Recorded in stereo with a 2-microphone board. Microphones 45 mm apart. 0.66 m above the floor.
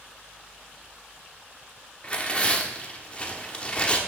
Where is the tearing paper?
25° left (ahead or behind), 1.0 m.